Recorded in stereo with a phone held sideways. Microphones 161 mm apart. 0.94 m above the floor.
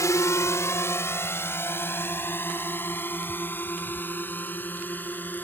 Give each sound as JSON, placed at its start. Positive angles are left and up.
{"t": 0.0, "sound": "a drone", "side_deg": 20}